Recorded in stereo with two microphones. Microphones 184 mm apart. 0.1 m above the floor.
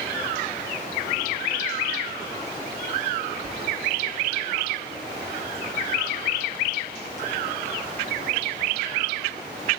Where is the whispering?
50° right (ahead or behind), 3 m.